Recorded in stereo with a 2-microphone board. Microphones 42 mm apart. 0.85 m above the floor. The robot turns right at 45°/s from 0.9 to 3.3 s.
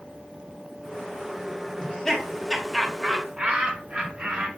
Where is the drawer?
No drawer in this recording.